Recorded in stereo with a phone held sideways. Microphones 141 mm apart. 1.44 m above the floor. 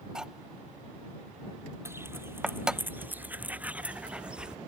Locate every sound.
0.1 s cutlery clinking: 5° right (ahead or behind)
1.9 s footsteps: 15° right (ahead or behind); by 4.6 s 5° right (ahead or behind)